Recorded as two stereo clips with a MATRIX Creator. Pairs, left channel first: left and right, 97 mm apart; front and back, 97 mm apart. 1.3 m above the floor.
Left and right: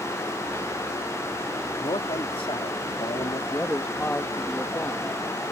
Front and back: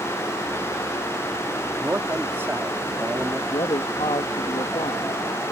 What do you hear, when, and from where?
1.8 s a man speaking: 115° left
3.5 s a man speaking: 20° left